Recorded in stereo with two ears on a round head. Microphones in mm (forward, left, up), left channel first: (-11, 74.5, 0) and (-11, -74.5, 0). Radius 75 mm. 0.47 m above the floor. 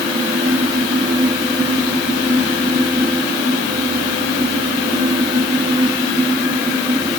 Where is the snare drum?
No snare drum in this recording.